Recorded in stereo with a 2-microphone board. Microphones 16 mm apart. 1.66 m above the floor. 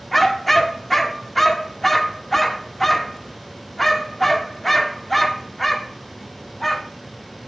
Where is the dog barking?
10° left (ahead or behind), 1.4 m.